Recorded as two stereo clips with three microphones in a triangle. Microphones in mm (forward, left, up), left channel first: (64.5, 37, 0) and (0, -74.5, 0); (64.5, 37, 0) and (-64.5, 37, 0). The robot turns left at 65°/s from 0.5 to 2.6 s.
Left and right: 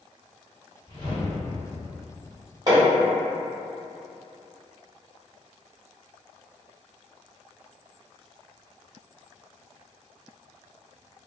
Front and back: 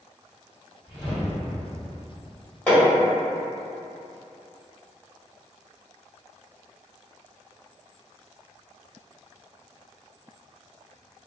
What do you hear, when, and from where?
0.9 s a whoosh: 100° left, 1.8 m; by 2.3 s 10° left, 1.8 m
2.7 s hammering: 75° right, 1.2 m